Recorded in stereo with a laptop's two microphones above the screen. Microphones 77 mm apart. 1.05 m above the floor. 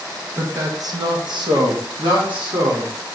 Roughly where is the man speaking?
Right.